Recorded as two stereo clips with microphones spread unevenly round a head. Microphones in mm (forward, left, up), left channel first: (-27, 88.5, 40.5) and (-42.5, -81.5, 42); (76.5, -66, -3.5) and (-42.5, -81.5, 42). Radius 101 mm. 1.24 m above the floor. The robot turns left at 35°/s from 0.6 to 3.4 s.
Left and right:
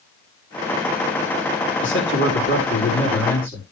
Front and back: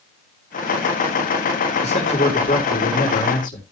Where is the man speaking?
75° left, 3.5 m; by 3.6 s 15° left, 3.5 m.